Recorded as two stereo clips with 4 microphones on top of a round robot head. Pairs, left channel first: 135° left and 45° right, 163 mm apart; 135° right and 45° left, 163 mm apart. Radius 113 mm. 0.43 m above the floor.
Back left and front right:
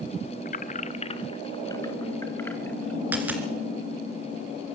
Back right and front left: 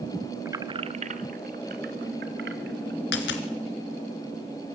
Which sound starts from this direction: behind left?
Keys jangling, at 0.5 s.